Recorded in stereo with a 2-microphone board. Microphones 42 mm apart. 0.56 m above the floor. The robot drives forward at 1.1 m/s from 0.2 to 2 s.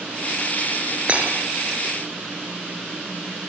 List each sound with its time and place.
1.1 s breaking glass: 30° right (ahead or behind), 5 m